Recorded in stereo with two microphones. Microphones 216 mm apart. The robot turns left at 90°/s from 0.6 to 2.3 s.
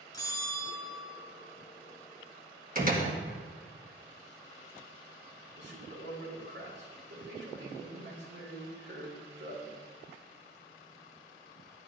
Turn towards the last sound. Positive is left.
turn(degrees=-65)  # may be behind; listen again after turning